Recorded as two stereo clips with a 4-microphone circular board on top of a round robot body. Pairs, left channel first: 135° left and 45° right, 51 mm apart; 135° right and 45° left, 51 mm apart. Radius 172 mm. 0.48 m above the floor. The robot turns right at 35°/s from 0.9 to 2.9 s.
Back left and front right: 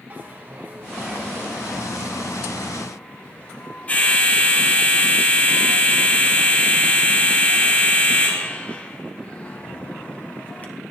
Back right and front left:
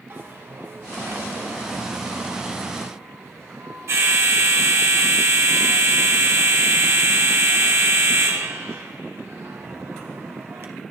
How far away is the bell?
About 2 m.